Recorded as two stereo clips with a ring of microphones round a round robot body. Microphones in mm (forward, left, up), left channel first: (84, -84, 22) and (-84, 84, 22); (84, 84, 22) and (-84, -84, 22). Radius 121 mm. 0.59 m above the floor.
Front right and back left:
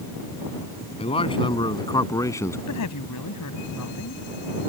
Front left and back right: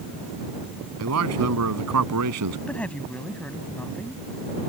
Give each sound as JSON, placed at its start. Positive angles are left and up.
{"t": 1.0, "sound": "a man speaking", "azimuth_deg": -110}
{"t": 2.7, "sound": "a woman speaking", "azimuth_deg": -40}